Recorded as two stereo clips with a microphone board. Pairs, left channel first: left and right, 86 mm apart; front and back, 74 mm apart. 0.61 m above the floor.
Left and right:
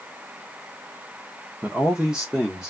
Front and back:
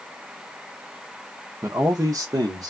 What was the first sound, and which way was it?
A man speaking, 155° right.